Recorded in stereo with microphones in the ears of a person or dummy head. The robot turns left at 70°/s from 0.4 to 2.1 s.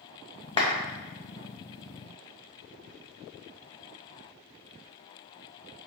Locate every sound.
0.6 s a clap: 25° left (ahead or behind), 0.7 m; by 0.8 s 40° left (ahead or behind), 0.7 m